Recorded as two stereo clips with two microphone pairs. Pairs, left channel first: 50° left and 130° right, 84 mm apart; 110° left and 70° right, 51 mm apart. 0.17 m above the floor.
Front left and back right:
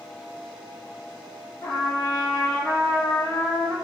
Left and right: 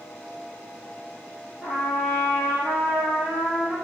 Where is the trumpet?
5° left, 1.3 m.